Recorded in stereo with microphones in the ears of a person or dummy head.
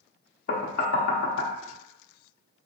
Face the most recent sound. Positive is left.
turn(degrees=50)  # may be behind; listen again after turning